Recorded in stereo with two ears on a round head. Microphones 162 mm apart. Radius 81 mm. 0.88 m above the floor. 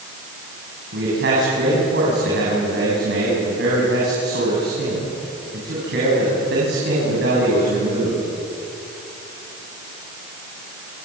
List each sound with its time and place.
0.9 s a man speaking: 65° right (ahead or behind), 8 m